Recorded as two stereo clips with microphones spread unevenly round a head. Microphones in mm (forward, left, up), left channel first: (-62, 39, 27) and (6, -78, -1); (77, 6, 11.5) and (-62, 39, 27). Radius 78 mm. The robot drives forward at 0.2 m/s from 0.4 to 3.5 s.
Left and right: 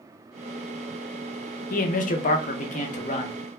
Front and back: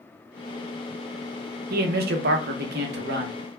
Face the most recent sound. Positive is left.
turn(degrees=160)